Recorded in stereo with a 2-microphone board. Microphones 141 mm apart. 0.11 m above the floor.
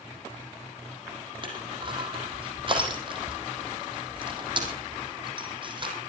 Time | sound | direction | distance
1.4 | crushing | 35° right (ahead or behind) | 5 m